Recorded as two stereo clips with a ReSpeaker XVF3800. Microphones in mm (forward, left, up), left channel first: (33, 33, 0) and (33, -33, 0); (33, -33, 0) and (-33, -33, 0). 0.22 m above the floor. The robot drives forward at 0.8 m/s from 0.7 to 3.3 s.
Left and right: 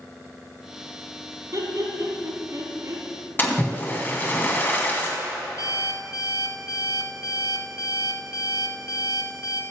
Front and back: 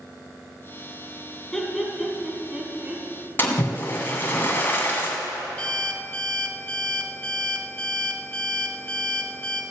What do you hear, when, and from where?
1.5 s laughter: 80° right, 2.5 m; by 3.0 s 115° right, 2.5 m
3.4 s a splash: 45° left, 2 m
5.6 s an alarm clock: 70° left, 1.3 m